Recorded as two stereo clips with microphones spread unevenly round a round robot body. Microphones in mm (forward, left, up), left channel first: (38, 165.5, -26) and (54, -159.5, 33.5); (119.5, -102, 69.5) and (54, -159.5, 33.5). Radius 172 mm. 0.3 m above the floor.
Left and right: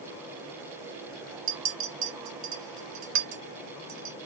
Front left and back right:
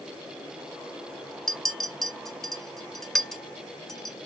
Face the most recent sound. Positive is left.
turn(degrees=-75)